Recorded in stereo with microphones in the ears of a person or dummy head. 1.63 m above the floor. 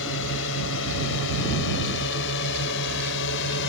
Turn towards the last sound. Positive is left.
turn(degrees=65)  # may be behind; listen again after turning